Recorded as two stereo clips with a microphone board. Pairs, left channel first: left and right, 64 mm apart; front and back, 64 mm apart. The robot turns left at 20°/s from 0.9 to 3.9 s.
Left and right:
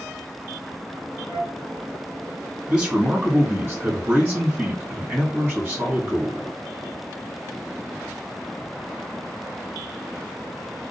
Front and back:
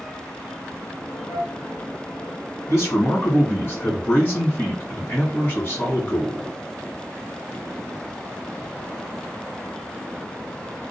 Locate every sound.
1.3 s a flute: 30° left, 1.1 m; by 1.6 s 25° left, 1.1 m
2.7 s a man speaking: 15° right, 1.7 m; by 6.5 s 40° right, 1.7 m